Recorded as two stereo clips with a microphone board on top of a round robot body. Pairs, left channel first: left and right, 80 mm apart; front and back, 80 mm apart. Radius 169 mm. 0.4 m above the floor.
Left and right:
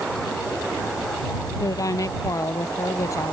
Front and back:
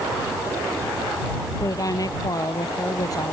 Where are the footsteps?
I don't hear footsteps.